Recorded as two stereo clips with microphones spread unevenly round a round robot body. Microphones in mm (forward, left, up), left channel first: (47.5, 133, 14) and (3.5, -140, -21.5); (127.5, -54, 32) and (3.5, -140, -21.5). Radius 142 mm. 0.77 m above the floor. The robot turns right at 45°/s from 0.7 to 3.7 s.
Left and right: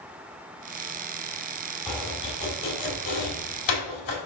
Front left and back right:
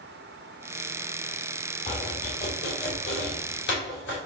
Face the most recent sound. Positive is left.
turn(degrees=75)